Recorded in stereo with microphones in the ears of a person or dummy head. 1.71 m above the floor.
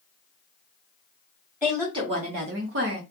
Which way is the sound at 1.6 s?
10° right (ahead or behind).